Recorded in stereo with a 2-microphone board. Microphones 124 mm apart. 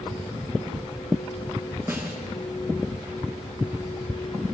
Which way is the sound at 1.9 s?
25° right (ahead or behind).